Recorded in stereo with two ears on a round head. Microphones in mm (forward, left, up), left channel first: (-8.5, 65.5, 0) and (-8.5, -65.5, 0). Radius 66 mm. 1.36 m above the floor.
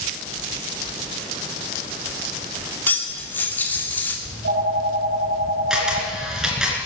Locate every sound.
2.9 s cutlery clinking: 15° left (ahead or behind), 2.5 m
4.2 s a phone ringing: 80° right, 3 m
5.7 s a camera shutter: 5° right (ahead or behind), 3 m